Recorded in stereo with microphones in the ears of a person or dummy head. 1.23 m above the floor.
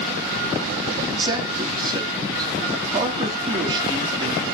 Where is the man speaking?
25° right (ahead or behind), 3 m.